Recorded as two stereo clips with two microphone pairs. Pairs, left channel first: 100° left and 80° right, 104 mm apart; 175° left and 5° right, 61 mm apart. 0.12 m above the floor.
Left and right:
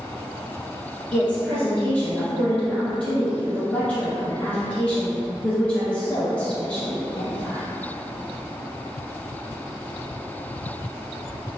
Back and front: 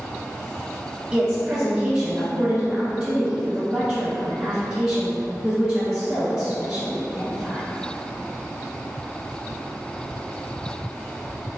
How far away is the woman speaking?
About 1.3 m.